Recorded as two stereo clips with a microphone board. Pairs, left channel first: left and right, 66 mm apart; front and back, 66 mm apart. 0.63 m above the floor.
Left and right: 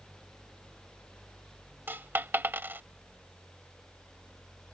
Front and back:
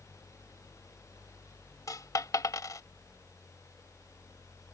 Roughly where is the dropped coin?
Ahead right.